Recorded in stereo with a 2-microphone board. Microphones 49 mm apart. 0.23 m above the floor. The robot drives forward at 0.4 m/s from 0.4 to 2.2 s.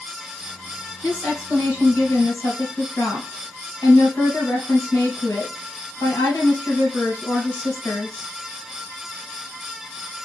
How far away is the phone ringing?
I don't hear a phone ringing.